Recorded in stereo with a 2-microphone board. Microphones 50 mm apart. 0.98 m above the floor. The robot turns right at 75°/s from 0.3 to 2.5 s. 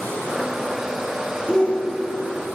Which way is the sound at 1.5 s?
15° left.